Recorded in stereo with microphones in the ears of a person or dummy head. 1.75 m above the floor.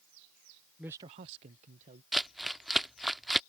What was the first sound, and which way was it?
A man speaking, centre (ahead or behind).